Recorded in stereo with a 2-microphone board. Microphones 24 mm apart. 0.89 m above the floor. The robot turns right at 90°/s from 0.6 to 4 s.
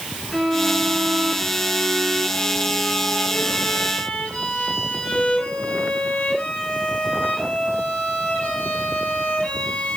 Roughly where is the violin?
Behind.